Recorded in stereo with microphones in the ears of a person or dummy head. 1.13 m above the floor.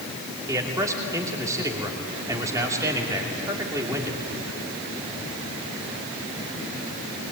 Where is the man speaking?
15° right (ahead or behind), 2.5 m.